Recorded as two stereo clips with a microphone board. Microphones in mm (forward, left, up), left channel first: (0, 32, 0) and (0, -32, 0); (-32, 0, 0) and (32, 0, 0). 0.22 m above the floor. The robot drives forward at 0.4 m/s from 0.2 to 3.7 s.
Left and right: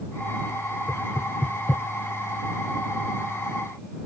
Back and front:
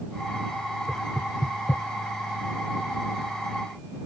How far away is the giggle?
No giggle in this recording.